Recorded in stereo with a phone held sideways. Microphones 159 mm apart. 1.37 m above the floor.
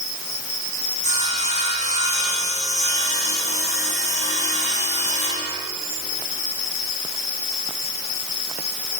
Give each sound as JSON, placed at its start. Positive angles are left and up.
{"t": 1.0, "sound": "sawing", "side_deg": 50, "distance_m": 9.5}